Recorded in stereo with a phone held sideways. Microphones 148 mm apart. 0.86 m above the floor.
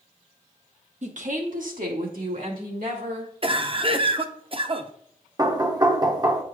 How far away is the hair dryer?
No hair dryer in this recording.